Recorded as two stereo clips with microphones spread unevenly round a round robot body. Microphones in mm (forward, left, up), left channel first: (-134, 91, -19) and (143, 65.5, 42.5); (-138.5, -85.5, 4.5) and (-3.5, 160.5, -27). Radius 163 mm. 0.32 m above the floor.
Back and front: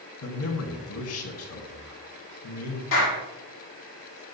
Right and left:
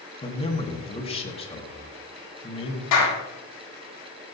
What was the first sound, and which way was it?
A man speaking, 170° left.